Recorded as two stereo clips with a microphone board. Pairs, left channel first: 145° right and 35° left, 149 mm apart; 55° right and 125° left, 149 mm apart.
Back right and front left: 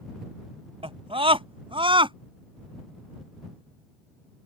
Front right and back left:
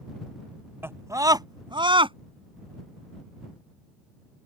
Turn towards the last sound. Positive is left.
turn(degrees=80)